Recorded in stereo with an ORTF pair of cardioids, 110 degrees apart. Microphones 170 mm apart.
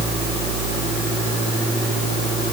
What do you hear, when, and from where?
Only background noise.